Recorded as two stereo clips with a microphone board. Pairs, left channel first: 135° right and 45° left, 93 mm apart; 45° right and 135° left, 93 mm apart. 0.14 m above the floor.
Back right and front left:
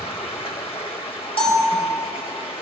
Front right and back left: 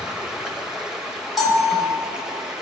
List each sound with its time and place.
0.0 s running water: 145° right, 1.8 m
1.4 s a bell: 135° right, 4 m